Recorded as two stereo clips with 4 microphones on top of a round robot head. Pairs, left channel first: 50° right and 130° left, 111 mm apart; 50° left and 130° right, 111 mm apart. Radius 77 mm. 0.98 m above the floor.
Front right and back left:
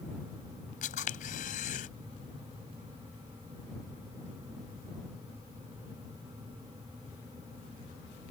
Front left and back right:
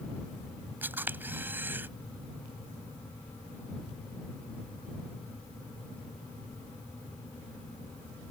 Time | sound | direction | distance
0.8 | a camera shutter | 55° right | ?